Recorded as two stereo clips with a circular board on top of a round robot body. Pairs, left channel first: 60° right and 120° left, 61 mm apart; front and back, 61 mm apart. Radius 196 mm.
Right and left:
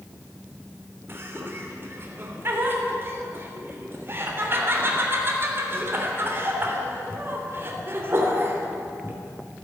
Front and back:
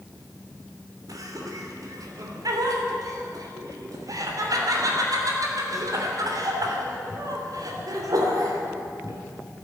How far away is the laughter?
About 3 m.